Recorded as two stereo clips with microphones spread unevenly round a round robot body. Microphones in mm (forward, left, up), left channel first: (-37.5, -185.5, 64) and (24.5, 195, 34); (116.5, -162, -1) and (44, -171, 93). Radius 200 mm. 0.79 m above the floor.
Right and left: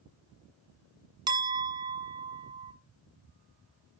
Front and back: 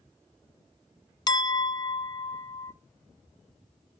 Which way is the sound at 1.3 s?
Straight ahead.